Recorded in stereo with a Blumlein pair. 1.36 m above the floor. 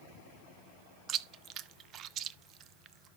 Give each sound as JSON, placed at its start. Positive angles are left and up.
{"t": 1.1, "sound": "chewing", "azimuth_deg": -30, "distance_m": 0.6}